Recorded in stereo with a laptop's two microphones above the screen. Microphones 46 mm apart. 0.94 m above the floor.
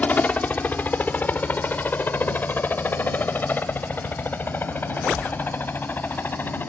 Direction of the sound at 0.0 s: 35° left (ahead or behind).